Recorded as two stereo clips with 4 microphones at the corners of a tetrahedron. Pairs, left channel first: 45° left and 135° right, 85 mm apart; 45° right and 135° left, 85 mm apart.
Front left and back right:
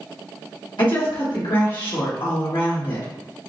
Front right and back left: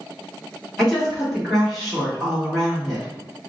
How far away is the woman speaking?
About 1.3 m.